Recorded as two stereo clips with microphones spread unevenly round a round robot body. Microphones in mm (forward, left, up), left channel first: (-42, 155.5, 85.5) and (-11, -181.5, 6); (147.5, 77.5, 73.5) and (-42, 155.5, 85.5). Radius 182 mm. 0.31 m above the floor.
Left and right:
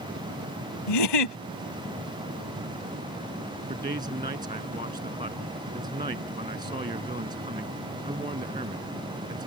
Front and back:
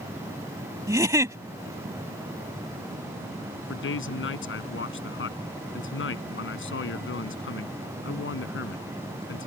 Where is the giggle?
80° left.